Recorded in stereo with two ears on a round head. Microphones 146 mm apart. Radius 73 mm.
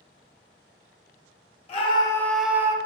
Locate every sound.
1.7 s a scream: 40° left (ahead or behind), 0.6 m; by 2.8 s 20° right (ahead or behind), 0.6 m